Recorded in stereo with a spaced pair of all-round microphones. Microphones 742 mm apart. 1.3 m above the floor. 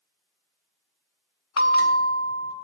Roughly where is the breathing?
No breathing in this recording.